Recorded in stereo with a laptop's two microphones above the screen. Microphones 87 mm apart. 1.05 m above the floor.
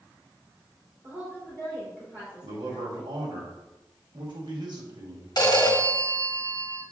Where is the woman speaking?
20° right (ahead or behind), 3 m.